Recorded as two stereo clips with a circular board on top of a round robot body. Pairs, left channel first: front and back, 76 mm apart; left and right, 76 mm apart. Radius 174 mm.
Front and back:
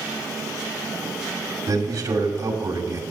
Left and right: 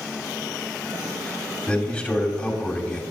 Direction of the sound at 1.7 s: 165° left.